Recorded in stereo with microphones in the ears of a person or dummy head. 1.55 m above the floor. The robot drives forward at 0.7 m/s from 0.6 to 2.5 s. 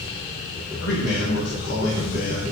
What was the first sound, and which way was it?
A man speaking, 75° left (ahead or behind).